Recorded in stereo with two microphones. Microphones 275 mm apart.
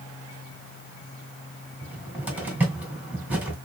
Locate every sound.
1.8 s a cupboard door: 5° right (ahead or behind), 2 m